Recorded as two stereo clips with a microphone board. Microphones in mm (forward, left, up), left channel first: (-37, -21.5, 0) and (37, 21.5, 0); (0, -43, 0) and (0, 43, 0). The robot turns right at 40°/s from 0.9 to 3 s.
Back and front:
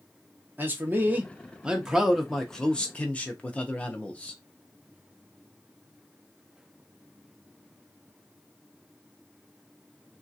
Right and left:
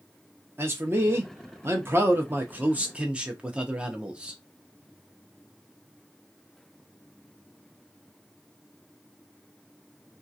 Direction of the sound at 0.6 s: 70° left.